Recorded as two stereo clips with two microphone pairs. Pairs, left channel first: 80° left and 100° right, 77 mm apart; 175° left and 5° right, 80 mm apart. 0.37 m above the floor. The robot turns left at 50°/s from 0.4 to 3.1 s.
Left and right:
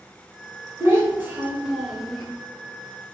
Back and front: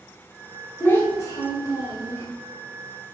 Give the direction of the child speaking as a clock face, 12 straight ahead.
4 o'clock.